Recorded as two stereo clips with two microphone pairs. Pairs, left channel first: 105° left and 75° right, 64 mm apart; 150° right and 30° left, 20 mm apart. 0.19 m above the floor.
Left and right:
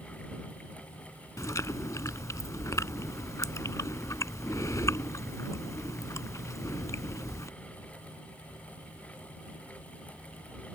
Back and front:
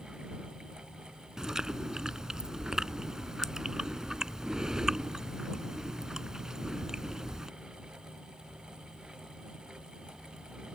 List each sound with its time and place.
1.4 s chewing: 85° left